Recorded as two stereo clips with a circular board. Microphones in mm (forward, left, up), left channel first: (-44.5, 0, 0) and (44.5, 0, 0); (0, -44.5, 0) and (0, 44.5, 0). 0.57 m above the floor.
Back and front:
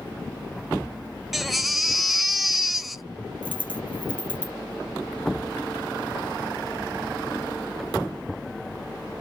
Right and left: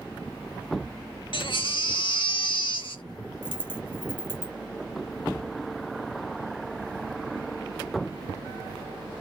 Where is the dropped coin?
125° right, 0.6 m.